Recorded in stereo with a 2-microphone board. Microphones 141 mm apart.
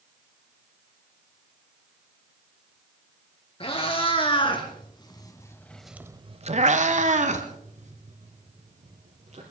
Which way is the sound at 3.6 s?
40° left (ahead or behind).